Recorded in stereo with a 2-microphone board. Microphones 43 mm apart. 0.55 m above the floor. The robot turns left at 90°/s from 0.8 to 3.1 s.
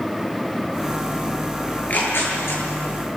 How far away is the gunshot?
I don't hear a gunshot.